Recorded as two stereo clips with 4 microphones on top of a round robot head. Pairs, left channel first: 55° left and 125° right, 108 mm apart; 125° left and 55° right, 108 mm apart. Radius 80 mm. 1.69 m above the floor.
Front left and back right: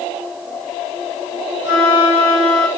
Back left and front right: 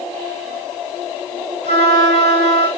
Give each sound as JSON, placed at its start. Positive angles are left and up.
{"t": 1.6, "sound": "a flute", "azimuth_deg": 165, "distance_m": 1.7}